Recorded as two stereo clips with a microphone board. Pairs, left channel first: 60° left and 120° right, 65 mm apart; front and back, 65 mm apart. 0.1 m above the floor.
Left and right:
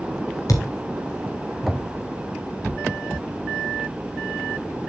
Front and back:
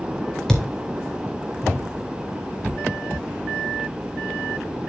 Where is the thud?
80° left, 2.5 m.